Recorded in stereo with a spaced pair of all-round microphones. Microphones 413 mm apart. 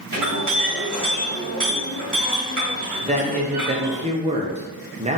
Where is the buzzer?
No buzzer in this recording.